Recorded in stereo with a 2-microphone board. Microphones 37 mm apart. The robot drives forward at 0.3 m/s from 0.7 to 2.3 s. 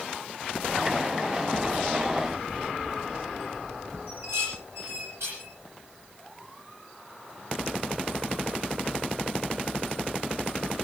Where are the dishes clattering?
80° right, 10 m.